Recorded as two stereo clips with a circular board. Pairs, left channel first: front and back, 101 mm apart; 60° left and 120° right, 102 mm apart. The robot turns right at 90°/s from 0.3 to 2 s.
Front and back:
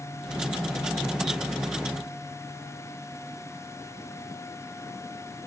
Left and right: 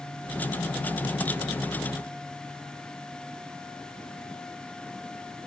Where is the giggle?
I don't hear a giggle.